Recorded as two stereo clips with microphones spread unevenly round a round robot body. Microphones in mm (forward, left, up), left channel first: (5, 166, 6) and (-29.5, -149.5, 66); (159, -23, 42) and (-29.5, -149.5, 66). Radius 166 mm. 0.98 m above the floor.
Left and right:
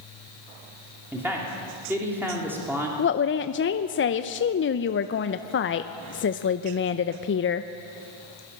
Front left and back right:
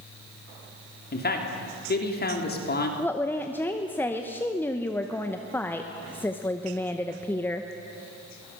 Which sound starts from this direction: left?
A woman speaking, at 3.0 s.